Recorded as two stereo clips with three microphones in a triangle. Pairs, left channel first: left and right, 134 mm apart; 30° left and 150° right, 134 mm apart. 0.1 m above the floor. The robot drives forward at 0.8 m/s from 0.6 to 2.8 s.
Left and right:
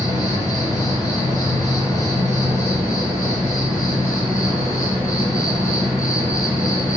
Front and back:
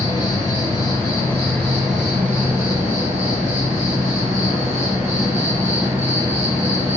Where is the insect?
50° left, 1.8 m; by 7.0 s 150° left, 2 m.